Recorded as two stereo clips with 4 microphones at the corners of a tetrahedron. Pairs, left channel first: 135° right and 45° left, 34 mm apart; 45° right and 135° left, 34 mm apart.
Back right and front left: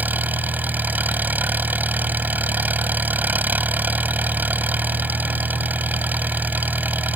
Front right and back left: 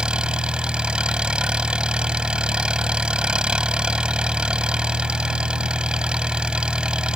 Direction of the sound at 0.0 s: 70° left.